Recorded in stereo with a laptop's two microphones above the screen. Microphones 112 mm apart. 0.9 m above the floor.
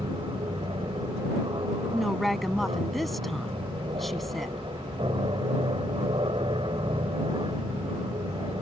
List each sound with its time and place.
0.0 s an aircraft: 50° right (ahead or behind)
1.9 s a woman speaking: centre (ahead or behind)